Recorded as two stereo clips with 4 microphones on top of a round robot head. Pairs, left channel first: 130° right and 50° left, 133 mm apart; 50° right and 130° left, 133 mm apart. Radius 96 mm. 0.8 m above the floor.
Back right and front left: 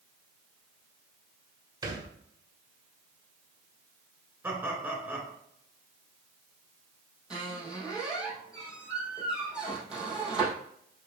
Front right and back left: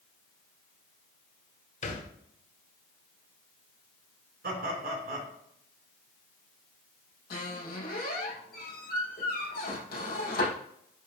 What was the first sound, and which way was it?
A thud, 15° right.